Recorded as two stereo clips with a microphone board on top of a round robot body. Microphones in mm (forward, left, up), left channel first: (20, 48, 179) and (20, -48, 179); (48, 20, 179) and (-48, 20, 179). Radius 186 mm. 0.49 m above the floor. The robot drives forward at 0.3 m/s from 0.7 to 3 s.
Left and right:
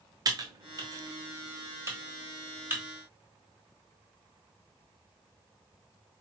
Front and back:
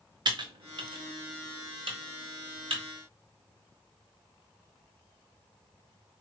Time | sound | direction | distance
0.2 | typing on a keyboard | 140° right | 0.7 m